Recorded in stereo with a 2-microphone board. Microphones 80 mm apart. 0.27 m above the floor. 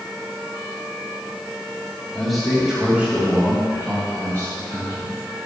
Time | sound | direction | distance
2.1 | a man speaking | 5° left (ahead or behind) | 1.7 m